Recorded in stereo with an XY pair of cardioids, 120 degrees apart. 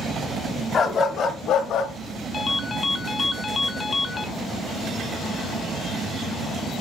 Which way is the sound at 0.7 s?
35° left.